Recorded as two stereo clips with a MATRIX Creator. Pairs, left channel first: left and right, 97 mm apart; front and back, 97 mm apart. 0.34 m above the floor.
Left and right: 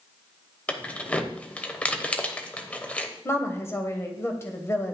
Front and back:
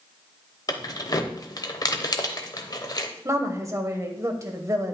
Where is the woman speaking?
140° left, 1.3 m.